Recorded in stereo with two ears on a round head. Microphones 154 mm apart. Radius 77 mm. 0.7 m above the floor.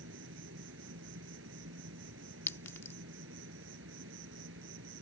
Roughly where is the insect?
Right.